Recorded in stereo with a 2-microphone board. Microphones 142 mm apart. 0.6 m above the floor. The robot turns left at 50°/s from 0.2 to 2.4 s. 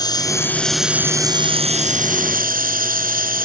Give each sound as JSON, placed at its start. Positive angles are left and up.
{"t": 0.0, "sound": "running water", "azimuth_deg": 30}